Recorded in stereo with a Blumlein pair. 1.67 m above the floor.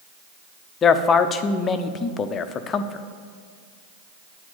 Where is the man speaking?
25° left, 0.7 m.